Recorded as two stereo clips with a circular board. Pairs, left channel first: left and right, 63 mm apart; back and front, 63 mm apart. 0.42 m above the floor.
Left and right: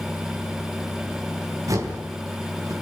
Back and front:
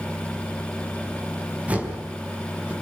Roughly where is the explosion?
I don't hear an explosion.